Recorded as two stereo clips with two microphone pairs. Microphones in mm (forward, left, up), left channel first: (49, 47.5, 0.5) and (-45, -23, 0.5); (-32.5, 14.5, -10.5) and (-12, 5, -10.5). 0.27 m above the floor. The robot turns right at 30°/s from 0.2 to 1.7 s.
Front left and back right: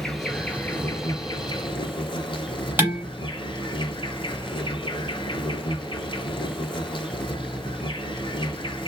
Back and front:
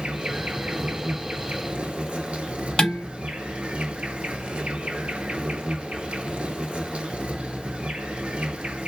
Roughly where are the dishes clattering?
Behind left.